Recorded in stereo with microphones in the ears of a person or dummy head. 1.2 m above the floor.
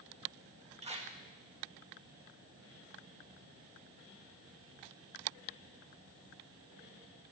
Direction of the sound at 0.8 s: 35° right (ahead or behind).